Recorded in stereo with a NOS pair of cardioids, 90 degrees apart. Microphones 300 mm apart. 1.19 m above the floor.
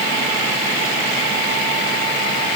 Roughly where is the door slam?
No door slam in this recording.